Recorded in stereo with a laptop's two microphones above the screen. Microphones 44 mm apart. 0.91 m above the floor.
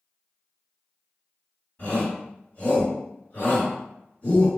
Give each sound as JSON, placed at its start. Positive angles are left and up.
{"t": 1.8, "sound": "a shout", "side_deg": 45, "distance_m": 1.9}